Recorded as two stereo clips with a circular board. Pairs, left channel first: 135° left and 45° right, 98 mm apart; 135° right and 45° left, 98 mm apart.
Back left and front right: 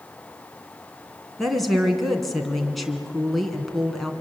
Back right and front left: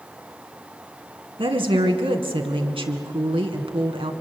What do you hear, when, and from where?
1.4 s a woman speaking: 45° left, 2.5 m